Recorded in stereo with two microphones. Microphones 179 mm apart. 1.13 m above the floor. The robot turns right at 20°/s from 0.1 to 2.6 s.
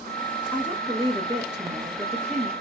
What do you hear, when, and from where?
0.5 s a woman speaking: 170° right, 1.7 m; by 2.5 s 130° right, 1.7 m